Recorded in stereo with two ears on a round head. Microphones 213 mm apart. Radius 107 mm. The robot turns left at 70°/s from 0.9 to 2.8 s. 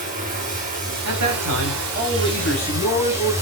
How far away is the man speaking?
About 6 m.